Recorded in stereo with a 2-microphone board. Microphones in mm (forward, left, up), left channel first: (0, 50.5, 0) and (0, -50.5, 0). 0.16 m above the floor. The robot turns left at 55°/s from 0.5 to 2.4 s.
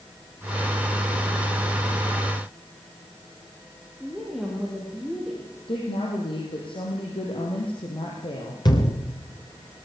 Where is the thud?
45° left (ahead or behind), 6 m.